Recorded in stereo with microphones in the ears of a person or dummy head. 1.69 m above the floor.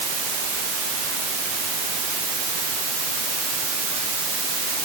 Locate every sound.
Only background noise.